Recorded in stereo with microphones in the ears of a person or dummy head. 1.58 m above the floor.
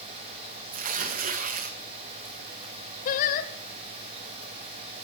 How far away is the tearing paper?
About 1.3 m.